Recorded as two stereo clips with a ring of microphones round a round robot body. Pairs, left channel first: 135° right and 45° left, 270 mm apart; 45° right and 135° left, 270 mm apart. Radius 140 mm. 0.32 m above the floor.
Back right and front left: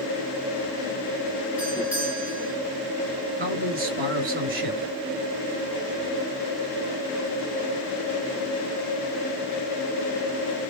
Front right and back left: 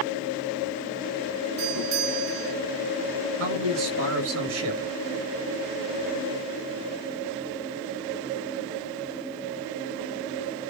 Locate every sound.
1.6 s a doorbell: 130° left, 5.5 m
3.4 s a man speaking: 100° left, 5 m